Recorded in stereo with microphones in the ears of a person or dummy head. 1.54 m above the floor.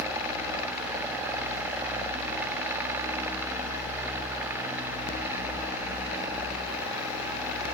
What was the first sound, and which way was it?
Only background noise.